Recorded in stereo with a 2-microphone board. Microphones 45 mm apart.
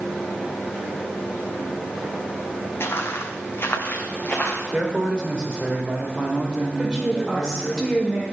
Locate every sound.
2.8 s footsteps: 65° left (ahead or behind), 0.9 m; by 4.6 s 40° left (ahead or behind), 1.6 m
4.7 s a man speaking: 20° right (ahead or behind), 1.5 m
6.8 s a woman speaking: centre (ahead or behind), 1.4 m